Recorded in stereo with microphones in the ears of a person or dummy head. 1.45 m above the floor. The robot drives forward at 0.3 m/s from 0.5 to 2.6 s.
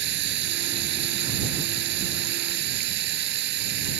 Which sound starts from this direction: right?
Running water, at 0.0 s.